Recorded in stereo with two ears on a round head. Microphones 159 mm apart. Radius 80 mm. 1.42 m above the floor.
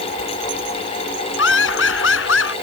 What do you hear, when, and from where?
1.4 s laughter: 75° left (ahead or behind)